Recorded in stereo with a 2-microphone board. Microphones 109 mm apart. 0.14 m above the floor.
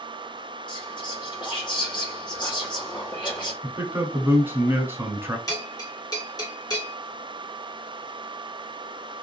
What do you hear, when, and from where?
0.7 s whispering: 45° left (ahead or behind), 1.7 m
3.6 s a man speaking: 20° right (ahead or behind), 1.2 m
5.5 s a bell: 35° left (ahead or behind), 1.7 m